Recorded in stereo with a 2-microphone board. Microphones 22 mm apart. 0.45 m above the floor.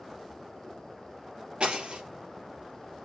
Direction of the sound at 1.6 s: 60° right (ahead or behind).